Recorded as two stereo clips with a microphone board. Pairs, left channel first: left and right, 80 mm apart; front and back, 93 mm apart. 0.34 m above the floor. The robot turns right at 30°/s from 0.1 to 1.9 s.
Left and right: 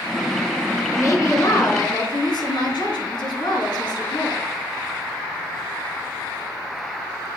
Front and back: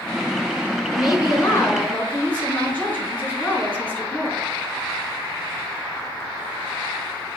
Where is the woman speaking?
40° left, 3 m; by 4.5 s 70° left, 3 m.